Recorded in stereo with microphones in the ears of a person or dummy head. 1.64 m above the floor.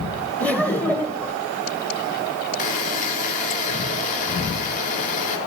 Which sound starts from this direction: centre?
Laughter, at 0.4 s.